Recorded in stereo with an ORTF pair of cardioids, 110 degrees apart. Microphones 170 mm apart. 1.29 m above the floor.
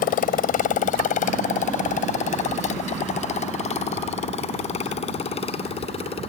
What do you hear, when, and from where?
0.0 s a motorcycle: 60° left; by 6.3 s 35° left